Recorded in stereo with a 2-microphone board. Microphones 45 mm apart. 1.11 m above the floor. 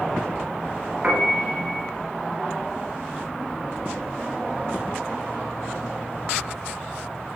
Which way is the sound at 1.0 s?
30° right (ahead or behind).